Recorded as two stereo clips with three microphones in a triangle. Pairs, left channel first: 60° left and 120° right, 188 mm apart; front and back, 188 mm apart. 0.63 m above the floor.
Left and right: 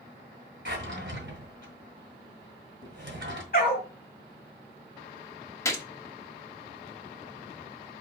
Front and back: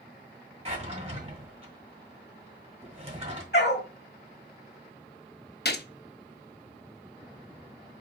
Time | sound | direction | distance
0.7 | a drawer | 125° right | 1.7 m
3.5 | a dog barking | 25° left | 1.2 m
5.7 | a gunshot | 10° right | 0.5 m